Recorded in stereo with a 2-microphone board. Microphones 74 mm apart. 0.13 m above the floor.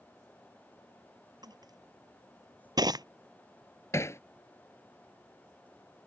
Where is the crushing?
65° right (ahead or behind).